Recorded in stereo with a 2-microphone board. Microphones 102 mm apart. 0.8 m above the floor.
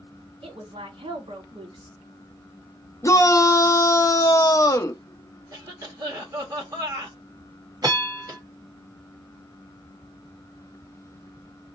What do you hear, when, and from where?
0.4 s a woman speaking: 70° right (ahead or behind), 1.7 m
3.0 s a shout: 30° left (ahead or behind), 0.6 m
5.5 s a cough: 35° right (ahead or behind), 1.7 m
7.8 s a bell: 40° right (ahead or behind), 1.2 m